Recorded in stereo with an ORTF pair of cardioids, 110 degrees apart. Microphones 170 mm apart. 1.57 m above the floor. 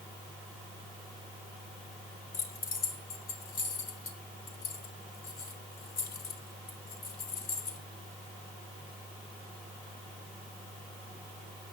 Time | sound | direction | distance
2.3 | keys jangling | 60° left | 4 m